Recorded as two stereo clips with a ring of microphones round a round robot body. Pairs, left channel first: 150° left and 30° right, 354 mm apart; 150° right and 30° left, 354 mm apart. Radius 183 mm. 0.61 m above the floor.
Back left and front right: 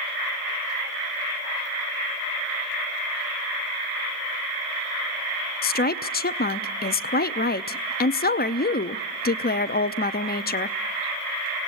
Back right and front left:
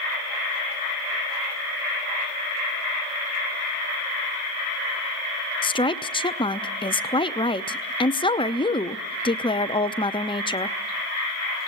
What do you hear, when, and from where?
5.6 s a woman speaking: 155° left, 0.6 m